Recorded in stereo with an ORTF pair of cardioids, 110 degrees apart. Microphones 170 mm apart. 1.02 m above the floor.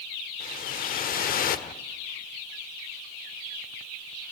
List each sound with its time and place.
0.4 s a whoosh: 55° left, 1.4 m